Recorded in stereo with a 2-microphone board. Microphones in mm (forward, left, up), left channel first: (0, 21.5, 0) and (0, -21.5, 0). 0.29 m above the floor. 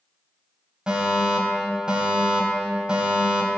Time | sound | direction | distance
0.9 | a fire alarm | 25° right (ahead or behind) | 3 m